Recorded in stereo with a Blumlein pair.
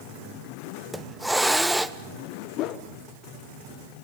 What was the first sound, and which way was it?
A hiss, straight ahead.